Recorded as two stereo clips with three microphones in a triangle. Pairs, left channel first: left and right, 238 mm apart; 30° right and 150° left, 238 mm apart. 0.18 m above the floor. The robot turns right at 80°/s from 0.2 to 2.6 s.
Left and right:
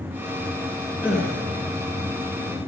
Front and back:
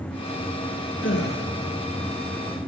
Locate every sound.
1.0 s a gasp: 10° right, 1.9 m; by 1.4 s 20° left, 1.9 m